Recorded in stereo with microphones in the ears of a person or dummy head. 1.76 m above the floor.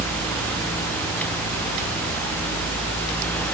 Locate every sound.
Only background noise.